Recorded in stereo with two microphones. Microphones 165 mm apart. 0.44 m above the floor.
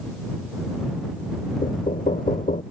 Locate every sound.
1.6 s knocking: 55° left (ahead or behind)